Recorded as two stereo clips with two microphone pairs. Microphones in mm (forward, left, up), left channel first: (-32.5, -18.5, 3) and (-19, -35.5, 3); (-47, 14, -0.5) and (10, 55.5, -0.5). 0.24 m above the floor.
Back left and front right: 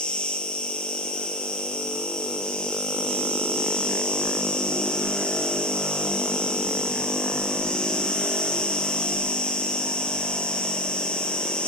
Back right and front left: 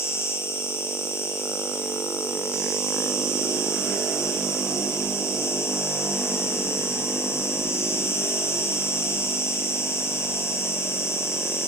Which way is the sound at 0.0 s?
165° left.